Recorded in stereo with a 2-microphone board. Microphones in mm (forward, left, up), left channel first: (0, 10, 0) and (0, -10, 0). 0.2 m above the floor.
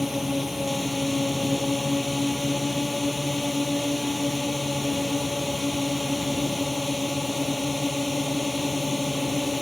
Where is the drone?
20° right (ahead or behind).